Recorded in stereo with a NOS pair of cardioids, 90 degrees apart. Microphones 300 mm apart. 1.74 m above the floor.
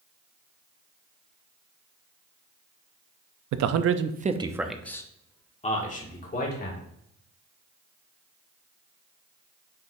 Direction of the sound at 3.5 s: 70° right.